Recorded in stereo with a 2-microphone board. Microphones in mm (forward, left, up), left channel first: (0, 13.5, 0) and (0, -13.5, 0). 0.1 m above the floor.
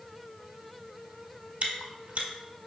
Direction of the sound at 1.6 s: 60° right (ahead or behind).